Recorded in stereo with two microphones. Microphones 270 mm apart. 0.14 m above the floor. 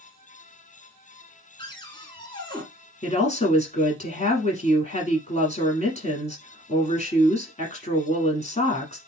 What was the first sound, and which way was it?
A cupboard door, 15° left (ahead or behind).